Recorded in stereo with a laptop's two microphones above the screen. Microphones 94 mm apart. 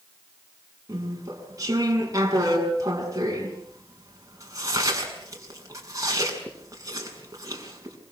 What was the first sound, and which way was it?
Chewing, 35° right (ahead or behind).